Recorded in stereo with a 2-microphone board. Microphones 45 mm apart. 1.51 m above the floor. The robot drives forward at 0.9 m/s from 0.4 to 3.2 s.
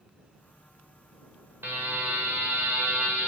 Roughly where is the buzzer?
Right.